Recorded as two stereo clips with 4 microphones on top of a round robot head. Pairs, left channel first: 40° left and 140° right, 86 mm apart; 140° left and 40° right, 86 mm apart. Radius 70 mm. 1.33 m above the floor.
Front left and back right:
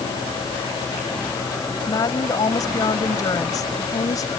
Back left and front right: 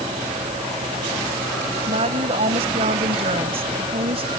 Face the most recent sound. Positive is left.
turn(degrees=-15)